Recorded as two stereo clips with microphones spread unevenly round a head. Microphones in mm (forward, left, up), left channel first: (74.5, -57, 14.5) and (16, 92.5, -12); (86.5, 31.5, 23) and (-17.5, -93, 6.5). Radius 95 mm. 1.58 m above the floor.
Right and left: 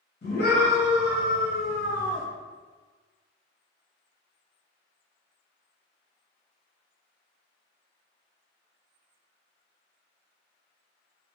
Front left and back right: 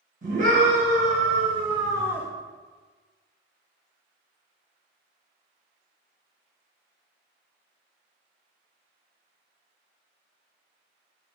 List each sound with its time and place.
0.2 s a scream: 90° right, 1.4 m; by 2.3 s 40° right, 0.6 m